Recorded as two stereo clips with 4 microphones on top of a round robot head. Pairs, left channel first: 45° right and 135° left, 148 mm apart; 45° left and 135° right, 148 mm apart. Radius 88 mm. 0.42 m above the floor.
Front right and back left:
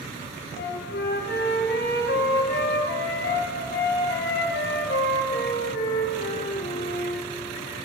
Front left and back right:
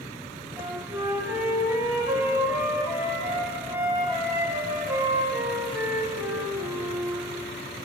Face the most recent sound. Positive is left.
turn(degrees=-60)